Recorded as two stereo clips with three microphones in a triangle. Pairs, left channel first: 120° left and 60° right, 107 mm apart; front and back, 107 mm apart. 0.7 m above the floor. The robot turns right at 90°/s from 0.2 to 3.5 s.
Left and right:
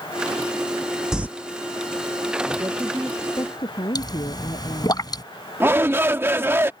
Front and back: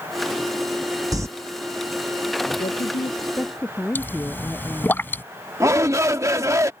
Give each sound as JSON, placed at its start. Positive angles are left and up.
{"t": 1.1, "sound": "crumpling", "azimuth_deg": -140}
{"t": 2.6, "sound": "a woman speaking", "azimuth_deg": -5}
{"t": 4.0, "sound": "a pop", "azimuth_deg": 75}
{"t": 5.6, "sound": "a shout", "azimuth_deg": -125}